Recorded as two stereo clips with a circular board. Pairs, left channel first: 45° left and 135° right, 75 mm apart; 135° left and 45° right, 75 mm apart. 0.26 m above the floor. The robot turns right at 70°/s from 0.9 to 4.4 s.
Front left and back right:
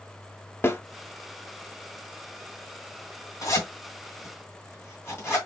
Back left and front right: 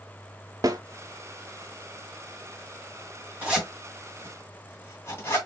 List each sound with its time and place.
0.6 s a snare drum: 10° right, 0.7 m
3.4 s a zipper: 15° left, 2 m; by 5.4 s 85° left, 2 m